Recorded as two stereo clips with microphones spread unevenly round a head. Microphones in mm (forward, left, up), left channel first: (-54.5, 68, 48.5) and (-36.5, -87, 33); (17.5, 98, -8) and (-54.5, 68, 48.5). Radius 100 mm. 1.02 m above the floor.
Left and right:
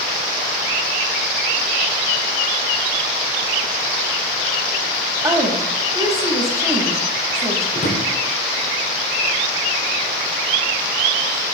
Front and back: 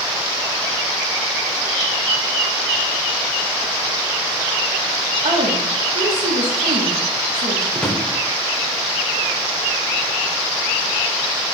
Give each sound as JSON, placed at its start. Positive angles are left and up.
{"t": 5.2, "sound": "a woman speaking", "azimuth_deg": -150, "distance_m": 1.5}
{"t": 7.8, "sound": "a drawer", "azimuth_deg": 130, "distance_m": 1.0}